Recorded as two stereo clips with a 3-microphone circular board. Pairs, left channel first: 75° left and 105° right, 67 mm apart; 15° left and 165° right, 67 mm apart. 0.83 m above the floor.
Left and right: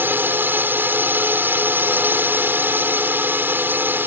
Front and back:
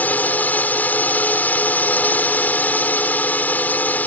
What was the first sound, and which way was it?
A drone, 50° right.